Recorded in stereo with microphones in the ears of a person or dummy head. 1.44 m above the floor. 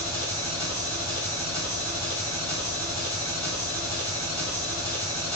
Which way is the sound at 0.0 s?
25° left (ahead or behind).